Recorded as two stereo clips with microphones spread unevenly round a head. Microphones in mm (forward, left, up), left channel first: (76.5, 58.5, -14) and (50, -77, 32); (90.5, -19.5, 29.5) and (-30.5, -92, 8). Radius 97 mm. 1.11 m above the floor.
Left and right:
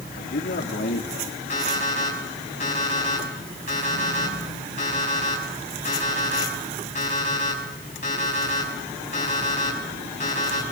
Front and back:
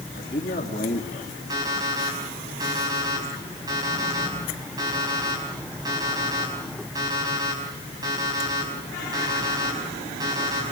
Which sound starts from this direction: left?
A man speaking, at 0.1 s.